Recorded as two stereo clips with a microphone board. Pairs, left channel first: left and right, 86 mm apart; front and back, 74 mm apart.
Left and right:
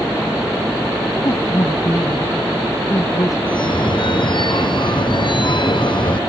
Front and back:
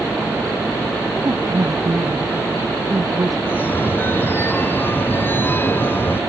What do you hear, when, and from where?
1.2 s a woman speaking: 140° left
3.5 s a phone ringing: 60° left